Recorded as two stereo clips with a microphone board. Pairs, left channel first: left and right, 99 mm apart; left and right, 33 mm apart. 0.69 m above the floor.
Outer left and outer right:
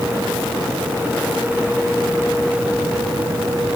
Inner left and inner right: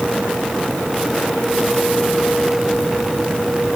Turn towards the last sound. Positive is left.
No sound to turn to.